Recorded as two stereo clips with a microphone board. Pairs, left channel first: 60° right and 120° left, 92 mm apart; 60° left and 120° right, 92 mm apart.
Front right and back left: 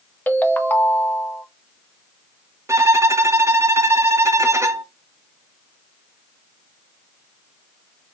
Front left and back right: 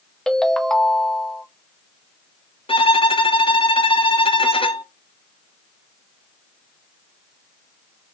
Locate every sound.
0.3 s a ringtone: 15° right, 0.7 m
2.7 s a violin: 60° left, 0.6 m